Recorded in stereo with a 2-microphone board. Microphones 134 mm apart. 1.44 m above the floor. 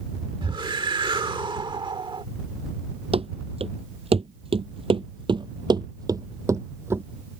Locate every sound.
0.4 s a whoosh: 40° right (ahead or behind)
3.1 s running footsteps: 50° right (ahead or behind); by 7.0 s 20° right (ahead or behind)